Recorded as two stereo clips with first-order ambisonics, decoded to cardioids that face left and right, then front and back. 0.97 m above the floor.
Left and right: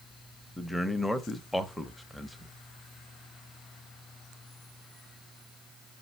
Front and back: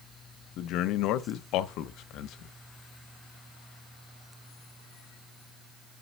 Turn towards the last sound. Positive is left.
turn(degrees=0)